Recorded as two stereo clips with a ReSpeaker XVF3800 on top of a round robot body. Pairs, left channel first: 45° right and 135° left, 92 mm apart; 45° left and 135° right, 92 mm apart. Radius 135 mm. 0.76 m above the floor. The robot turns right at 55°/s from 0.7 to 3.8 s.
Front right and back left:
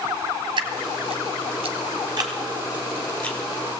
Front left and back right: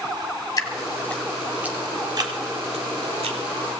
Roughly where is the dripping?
Left.